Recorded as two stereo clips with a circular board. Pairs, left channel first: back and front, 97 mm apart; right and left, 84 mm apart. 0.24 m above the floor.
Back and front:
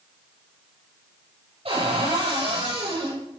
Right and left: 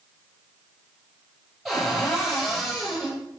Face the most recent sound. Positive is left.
turn(degrees=5)